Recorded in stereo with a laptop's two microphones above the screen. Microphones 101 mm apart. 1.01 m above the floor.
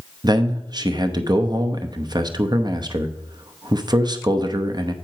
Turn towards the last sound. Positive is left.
turn(degrees=-40)  # may be behind; listen again after turning